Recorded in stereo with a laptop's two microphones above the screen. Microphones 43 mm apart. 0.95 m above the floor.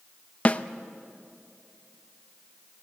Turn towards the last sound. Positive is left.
turn(degrees=35)  # may be behind; listen again after turning